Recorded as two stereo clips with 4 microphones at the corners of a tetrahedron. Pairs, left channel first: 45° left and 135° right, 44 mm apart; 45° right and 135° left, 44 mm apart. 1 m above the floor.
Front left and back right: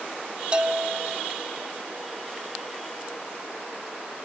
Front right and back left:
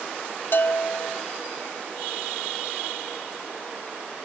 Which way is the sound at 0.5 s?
75° right.